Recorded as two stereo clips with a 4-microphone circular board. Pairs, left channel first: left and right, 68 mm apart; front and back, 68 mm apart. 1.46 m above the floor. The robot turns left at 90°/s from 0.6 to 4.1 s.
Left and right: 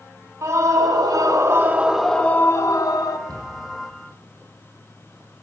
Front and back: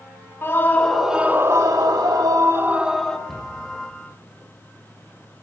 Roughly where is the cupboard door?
Right.